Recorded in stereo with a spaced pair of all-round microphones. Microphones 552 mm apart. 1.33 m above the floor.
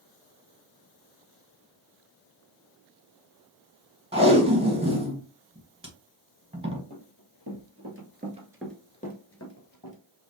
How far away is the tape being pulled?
About 1.3 m.